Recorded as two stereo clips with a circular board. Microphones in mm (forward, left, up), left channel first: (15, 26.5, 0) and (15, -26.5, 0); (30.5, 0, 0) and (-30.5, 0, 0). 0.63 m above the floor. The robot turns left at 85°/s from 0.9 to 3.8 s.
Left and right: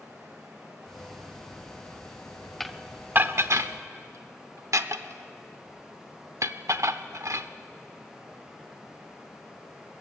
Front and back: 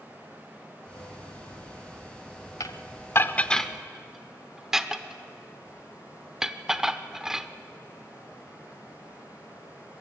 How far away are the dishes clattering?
About 0.8 m.